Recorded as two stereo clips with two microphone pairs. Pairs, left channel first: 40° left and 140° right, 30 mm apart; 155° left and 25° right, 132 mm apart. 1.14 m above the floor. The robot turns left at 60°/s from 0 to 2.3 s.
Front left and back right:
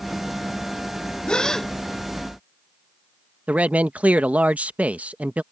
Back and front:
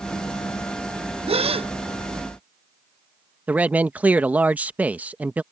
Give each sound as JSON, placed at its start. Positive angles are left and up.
{"t": 1.3, "sound": "a gasp", "azimuth_deg": -15}
{"t": 3.5, "sound": "a man speaking", "azimuth_deg": -100}